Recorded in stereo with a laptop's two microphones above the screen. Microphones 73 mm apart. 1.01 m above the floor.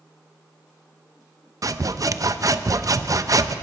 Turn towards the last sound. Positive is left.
turn(degrees=-50)  # may be behind; listen again after turning